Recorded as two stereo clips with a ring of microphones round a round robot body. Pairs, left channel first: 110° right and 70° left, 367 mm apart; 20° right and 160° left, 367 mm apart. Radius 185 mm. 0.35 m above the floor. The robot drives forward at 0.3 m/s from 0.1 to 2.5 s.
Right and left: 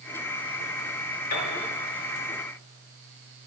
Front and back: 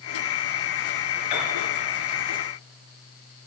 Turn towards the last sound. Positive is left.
turn(degrees=-80)